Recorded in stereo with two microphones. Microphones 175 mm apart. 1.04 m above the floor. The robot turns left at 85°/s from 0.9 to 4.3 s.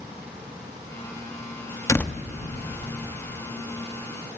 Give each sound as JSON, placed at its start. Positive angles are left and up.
{"t": 1.9, "sound": "a door slam", "side_deg": 20, "distance_m": 0.8}